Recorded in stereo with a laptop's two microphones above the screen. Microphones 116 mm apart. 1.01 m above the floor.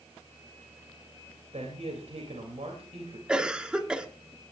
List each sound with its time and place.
1.5 s a man speaking: 70° right (ahead or behind), 3.5 m
3.3 s a cough: 10° right (ahead or behind), 1.9 m